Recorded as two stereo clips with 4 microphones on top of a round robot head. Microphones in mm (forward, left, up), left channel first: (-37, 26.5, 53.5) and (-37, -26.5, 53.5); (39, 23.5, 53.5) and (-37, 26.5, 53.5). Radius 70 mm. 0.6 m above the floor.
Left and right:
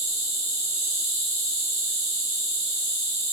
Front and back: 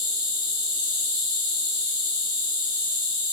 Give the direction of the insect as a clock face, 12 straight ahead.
12 o'clock.